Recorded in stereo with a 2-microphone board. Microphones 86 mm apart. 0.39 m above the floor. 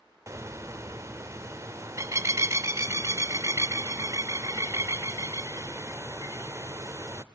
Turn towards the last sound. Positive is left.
turn(degrees=-35)  # may be behind; listen again after turning